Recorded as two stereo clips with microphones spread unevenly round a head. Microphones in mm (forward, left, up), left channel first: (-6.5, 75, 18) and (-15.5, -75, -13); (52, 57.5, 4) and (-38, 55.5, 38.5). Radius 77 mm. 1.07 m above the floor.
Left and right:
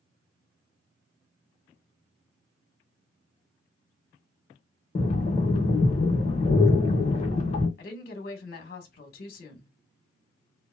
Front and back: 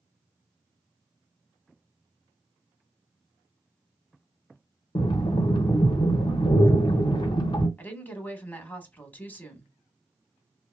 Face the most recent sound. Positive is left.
turn(degrees=55)